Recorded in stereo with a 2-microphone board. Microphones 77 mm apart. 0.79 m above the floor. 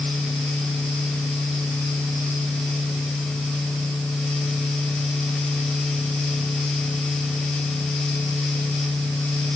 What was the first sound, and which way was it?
Only background noise.